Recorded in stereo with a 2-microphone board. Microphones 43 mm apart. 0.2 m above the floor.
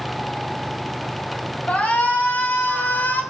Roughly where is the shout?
Left.